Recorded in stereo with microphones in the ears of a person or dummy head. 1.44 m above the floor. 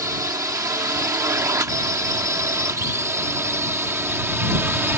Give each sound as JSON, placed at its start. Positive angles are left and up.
{"t": 0.0, "sound": "a drone", "side_deg": -20}